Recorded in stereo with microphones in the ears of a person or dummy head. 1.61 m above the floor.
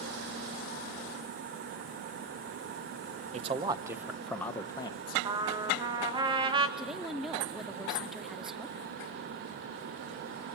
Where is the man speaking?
35° right (ahead or behind), 1.0 m; by 5.2 s 30° left (ahead or behind), 1.2 m.